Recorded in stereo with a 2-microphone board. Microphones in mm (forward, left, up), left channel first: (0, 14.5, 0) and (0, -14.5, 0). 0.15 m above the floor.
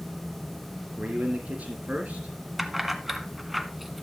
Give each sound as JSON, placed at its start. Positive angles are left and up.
{"t": 1.0, "sound": "a man speaking", "side_deg": -55, "distance_m": 3.0}
{"t": 2.6, "sound": "keys jangling", "side_deg": -10, "distance_m": 0.9}